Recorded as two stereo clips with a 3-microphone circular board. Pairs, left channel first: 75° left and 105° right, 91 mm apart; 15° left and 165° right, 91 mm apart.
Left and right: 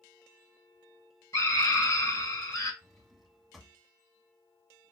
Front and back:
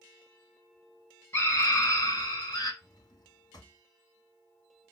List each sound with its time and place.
1.3 s a scream: 50° left, 2.0 m; by 2.7 s 35° left, 3 m
2.8 s a drawer: 15° right, 1.2 m